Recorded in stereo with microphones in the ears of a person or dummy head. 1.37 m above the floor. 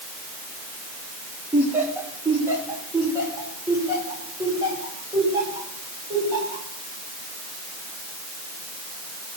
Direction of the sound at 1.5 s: 5° right (ahead or behind).